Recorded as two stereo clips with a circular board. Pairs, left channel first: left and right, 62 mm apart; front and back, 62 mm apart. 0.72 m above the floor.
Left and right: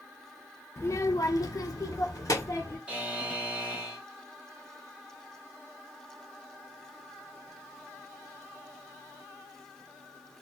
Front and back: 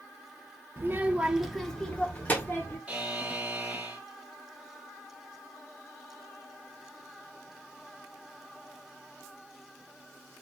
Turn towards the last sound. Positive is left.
turn(degrees=-135)